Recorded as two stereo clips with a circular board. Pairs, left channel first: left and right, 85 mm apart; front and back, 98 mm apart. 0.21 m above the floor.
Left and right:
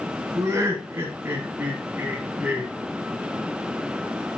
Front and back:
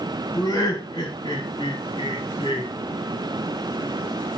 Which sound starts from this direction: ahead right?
Laughter, at 0.3 s.